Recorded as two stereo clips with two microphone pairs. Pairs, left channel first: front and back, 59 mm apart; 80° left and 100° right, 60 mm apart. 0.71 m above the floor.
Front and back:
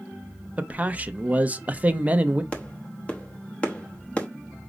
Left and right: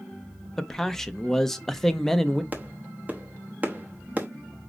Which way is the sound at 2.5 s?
50° right.